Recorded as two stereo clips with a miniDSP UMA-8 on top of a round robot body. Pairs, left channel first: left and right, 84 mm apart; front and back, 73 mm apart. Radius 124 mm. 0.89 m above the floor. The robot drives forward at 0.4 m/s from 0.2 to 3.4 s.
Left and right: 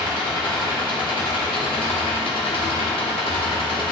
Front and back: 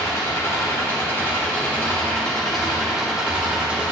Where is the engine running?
55° left, 1.6 m; by 3.9 s 105° left, 1.3 m.